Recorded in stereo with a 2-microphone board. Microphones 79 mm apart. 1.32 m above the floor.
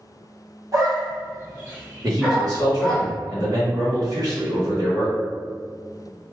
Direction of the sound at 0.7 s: 45° right (ahead or behind).